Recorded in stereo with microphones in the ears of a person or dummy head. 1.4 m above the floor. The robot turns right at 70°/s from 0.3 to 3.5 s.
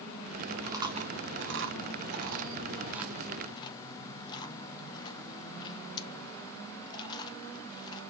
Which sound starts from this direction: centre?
Chewing, at 0.6 s.